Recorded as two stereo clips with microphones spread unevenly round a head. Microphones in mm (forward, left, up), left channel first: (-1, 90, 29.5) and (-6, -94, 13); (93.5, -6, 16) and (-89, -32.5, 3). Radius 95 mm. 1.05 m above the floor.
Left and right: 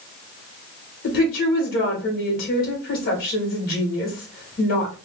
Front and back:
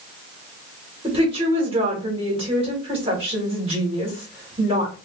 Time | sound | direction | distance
1.0 | a woman speaking | 130° left | 1.7 m